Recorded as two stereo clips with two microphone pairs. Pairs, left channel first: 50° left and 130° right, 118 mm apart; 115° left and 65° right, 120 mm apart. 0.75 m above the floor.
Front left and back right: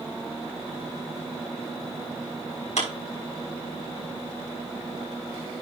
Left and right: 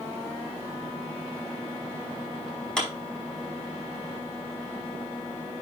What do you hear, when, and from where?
2.8 s a clap: 35° left, 5 m